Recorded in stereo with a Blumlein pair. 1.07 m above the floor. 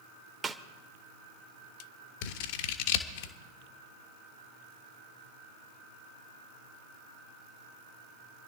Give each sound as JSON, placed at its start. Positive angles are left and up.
{"t": 0.4, "sound": "a snare drum", "azimuth_deg": -15, "distance_m": 1.2}
{"t": 2.2, "sound": "scissors", "azimuth_deg": 50, "distance_m": 1.3}